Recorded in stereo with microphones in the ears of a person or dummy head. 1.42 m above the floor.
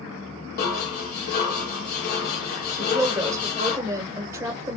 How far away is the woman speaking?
About 1.0 m.